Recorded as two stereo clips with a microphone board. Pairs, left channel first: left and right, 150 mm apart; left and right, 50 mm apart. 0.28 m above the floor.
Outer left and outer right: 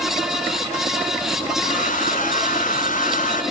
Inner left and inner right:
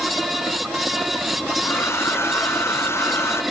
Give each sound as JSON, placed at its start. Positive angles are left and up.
{"t": 1.6, "sound": "a hair dryer", "side_deg": 60, "distance_m": 1.8}